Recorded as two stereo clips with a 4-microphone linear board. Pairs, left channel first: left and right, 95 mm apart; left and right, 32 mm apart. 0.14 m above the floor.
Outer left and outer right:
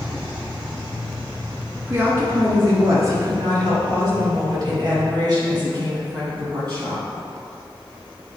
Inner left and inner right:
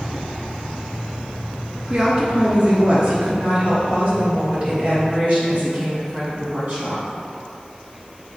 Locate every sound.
1.9 s a woman speaking: 20° right (ahead or behind), 1.5 m; by 7.0 s 45° right (ahead or behind), 5 m